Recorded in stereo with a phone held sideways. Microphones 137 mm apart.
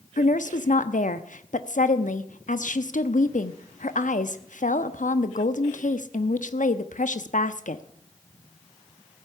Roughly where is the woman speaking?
Left.